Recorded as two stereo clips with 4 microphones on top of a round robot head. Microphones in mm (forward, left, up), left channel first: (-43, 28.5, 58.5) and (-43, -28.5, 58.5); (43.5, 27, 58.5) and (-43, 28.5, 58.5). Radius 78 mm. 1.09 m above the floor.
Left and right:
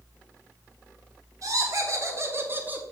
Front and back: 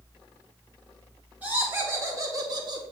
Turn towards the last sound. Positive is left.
turn(degrees=-155)